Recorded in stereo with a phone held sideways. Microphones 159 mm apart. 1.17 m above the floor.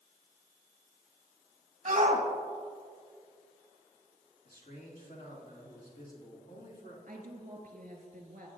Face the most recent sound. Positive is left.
turn(degrees=-65)  # may be behind; listen again after turning